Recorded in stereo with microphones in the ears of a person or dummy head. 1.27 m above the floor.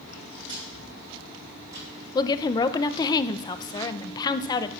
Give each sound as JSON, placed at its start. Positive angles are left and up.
{"t": 0.1, "sound": "footsteps", "side_deg": -40, "distance_m": 3.5}
{"t": 2.1, "sound": "a woman speaking", "side_deg": 20, "distance_m": 0.5}